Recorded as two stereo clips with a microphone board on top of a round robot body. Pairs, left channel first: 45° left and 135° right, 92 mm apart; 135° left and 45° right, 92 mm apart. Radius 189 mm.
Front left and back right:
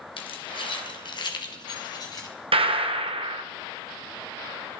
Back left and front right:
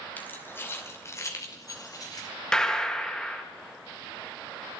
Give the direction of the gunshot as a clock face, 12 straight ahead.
5 o'clock.